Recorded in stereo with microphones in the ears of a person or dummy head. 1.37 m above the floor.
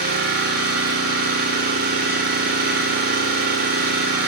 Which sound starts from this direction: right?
An engine running, at 0.0 s.